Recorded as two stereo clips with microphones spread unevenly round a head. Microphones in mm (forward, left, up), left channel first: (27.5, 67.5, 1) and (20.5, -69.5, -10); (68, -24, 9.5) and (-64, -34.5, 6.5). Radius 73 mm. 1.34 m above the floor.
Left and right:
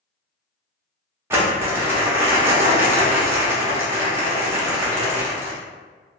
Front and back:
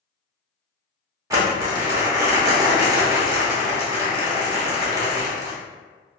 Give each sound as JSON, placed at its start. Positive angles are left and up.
{"t": 1.3, "sound": "crumpling", "azimuth_deg": -150, "distance_m": 0.8}